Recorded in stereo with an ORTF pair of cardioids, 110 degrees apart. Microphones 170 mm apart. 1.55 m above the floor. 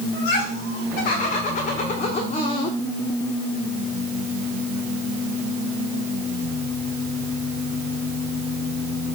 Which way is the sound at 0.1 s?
65° left.